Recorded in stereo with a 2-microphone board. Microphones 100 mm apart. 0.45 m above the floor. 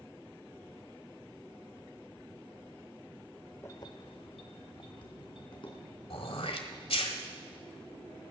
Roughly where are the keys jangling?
Left.